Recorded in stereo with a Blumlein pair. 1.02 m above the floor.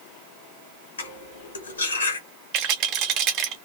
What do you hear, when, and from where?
1.0 s cutlery clinking: 70° left, 1.5 m
2.5 s a rattle: 35° right, 1.0 m